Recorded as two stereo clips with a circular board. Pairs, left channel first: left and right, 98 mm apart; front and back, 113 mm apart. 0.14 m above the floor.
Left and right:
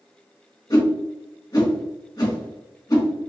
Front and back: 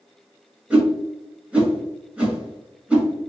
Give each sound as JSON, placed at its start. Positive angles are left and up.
{"t": 0.7, "sound": "a whoosh", "azimuth_deg": 110, "distance_m": 1.3}